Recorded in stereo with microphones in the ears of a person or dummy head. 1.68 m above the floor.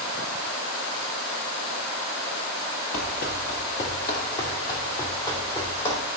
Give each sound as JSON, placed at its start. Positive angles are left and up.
{"t": 2.9, "sound": "running footsteps", "side_deg": 30, "distance_m": 1.9}